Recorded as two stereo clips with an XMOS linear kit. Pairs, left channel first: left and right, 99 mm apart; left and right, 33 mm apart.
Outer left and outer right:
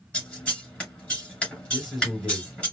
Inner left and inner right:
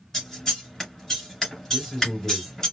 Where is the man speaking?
5° right (ahead or behind), 3 m.